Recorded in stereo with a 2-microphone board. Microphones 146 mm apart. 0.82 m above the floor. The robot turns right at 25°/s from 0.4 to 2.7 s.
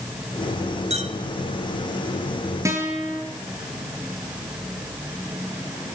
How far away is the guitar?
About 6.5 m.